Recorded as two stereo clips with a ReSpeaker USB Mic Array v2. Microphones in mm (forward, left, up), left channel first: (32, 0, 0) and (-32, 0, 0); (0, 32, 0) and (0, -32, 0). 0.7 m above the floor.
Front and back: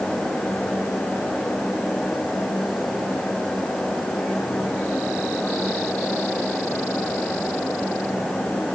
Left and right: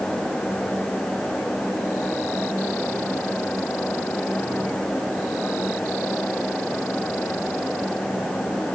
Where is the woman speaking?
No woman speaking in this recording.